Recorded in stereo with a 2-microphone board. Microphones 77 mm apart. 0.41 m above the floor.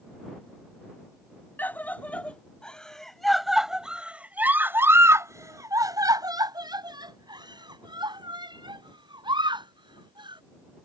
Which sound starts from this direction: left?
A scream, at 1.6 s.